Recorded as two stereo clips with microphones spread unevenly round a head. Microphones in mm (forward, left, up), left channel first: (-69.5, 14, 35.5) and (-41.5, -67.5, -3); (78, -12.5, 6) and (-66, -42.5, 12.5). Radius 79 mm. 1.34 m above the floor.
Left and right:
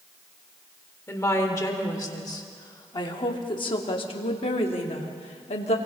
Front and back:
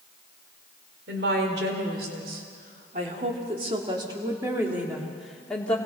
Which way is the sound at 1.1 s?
165° left.